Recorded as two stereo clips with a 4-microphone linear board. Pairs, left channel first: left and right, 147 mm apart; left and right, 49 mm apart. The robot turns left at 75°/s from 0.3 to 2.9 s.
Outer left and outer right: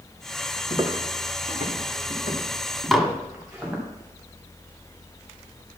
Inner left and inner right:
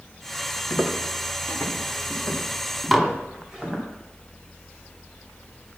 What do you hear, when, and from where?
0.7 s footsteps: 35° right (ahead or behind), 1.7 m; by 3.8 s 5° right (ahead or behind), 5.5 m
2.9 s dishes clattering: centre (ahead or behind), 0.9 m